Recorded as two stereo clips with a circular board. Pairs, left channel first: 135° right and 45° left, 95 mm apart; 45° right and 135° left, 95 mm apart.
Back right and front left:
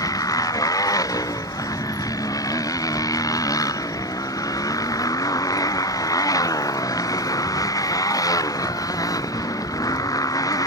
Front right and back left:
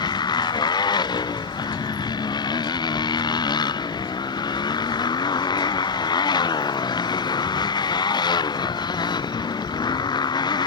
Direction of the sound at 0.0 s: 85° right.